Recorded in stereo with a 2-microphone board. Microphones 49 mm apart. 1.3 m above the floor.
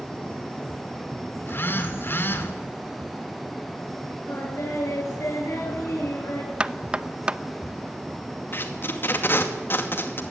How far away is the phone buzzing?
About 2.5 m.